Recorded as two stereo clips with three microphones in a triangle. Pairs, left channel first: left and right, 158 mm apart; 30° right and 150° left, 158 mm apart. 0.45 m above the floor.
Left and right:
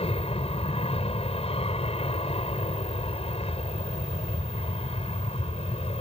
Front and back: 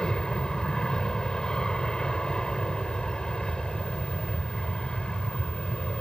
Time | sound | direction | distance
0.0 | an aircraft | 55° left | ?